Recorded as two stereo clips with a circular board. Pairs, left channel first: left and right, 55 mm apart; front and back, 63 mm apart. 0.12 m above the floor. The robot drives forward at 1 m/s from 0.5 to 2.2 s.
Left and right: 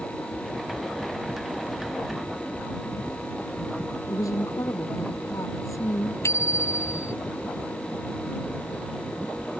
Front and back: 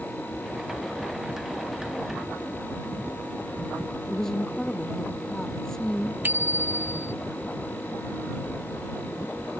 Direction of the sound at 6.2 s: 120° left.